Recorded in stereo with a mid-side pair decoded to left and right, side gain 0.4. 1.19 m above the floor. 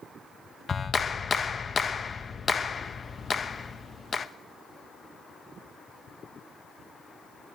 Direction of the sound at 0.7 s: 45° left.